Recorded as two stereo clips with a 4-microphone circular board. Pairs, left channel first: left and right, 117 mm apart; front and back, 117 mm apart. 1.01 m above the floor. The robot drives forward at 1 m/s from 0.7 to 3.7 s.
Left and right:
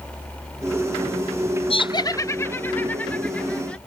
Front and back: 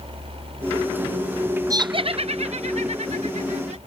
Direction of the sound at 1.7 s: 120° left.